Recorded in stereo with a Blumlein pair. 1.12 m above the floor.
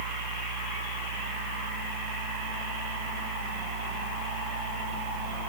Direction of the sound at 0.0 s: 65° right.